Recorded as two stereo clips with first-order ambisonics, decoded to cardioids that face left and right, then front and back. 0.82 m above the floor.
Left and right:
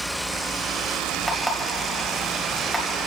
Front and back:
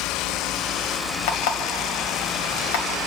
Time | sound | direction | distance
1.3 | an alarm clock | 5° right | 1.8 m